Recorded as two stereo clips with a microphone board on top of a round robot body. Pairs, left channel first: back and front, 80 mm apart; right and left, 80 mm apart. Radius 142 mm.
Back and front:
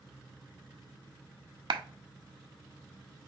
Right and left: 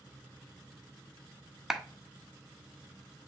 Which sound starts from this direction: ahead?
A clap, at 1.7 s.